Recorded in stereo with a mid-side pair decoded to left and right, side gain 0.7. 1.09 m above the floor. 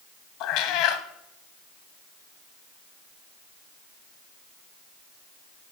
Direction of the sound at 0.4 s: 65° left.